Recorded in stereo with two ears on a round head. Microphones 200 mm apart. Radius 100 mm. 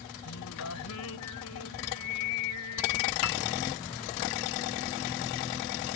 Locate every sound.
0.2 s singing: 75° left (ahead or behind)
3.2 s a piano: 70° left (ahead or behind)